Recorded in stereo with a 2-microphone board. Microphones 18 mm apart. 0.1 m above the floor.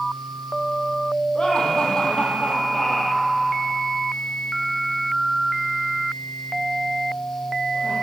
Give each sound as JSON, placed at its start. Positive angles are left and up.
{"t": 1.4, "sound": "laughter", "side_deg": 45, "distance_m": 3.5}